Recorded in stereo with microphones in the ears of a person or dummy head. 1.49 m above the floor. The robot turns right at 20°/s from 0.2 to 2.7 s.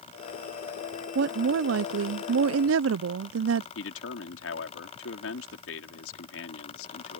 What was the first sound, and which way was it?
A woman speaking, 125° right.